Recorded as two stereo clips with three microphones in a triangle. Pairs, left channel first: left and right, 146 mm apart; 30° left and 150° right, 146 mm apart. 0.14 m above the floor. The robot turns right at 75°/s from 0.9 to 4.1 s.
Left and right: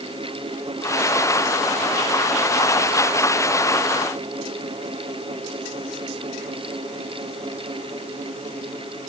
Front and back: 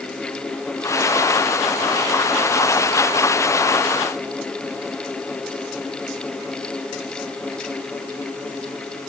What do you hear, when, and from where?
Only background noise.